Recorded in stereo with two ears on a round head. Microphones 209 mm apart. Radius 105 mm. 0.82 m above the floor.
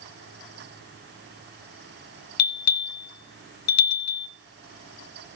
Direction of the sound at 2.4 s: 75° left (ahead or behind).